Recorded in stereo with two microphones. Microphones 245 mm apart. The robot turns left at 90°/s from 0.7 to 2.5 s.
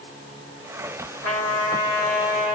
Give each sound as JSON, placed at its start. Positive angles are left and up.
{"t": 1.2, "sound": "a trumpet", "azimuth_deg": 80, "distance_m": 3.0}